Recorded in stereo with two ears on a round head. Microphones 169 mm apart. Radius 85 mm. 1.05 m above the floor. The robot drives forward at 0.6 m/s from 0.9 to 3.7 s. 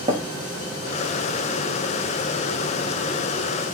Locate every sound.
0.1 s tapping: 25° right (ahead or behind), 0.9 m